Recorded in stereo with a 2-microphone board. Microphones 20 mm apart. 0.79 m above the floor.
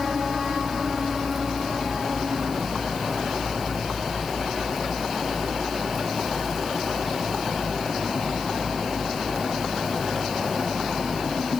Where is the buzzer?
I don't hear a buzzer.